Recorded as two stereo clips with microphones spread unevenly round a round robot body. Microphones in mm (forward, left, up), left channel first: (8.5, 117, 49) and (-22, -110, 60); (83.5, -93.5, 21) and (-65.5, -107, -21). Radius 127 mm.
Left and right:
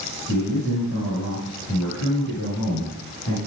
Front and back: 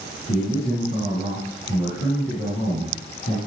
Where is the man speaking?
50° left, 7 m.